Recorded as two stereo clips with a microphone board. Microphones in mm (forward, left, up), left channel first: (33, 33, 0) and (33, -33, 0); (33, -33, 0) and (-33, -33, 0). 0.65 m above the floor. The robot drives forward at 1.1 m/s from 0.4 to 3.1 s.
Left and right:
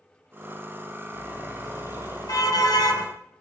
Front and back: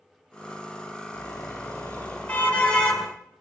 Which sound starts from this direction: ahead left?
A car horn, at 1.1 s.